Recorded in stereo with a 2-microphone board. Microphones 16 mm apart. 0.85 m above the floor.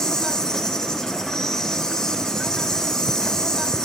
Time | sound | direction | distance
0.0 | an insect | 45° left (ahead or behind) | 2.5 m